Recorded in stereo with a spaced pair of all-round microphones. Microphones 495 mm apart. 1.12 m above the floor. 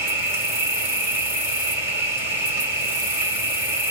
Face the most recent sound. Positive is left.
turn(degrees=-5)  # may be behind; listen again after turning